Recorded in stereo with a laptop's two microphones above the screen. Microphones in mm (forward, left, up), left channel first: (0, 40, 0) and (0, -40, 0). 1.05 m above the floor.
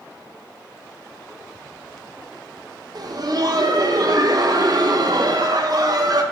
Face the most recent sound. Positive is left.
turn(degrees=-55)  # may be behind; listen again after turning